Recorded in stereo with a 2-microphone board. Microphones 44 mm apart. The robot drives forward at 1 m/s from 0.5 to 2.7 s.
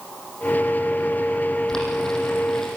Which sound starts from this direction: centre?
Boiling, at 1.7 s.